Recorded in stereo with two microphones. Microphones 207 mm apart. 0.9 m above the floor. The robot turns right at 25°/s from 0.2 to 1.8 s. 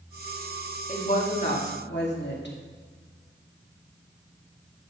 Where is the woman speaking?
35° left (ahead or behind), 2 m; by 2.6 s 55° left (ahead or behind), 2 m.